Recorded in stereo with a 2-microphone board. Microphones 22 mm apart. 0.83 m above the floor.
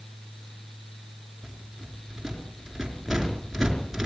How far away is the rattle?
About 5 m.